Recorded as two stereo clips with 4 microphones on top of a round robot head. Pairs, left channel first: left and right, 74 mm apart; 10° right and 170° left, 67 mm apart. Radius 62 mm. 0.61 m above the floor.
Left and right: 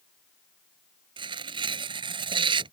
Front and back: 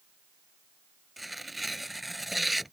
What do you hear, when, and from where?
1.2 s tearing paper: 100° right